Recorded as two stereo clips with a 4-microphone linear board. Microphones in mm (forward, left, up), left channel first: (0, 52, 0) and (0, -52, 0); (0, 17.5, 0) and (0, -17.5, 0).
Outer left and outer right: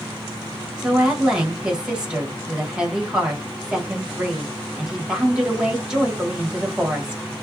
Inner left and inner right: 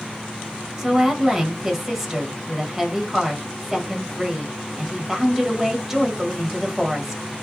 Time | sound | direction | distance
0.8 | a woman speaking | 5° right (ahead or behind) | 1.1 m